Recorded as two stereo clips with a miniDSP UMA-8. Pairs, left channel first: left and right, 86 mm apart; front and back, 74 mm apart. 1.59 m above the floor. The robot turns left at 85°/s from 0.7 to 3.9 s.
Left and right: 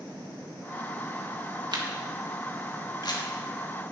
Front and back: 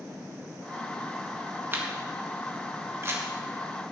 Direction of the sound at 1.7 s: 120° right.